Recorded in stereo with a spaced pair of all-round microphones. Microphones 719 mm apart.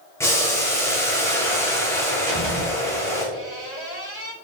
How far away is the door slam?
About 4 m.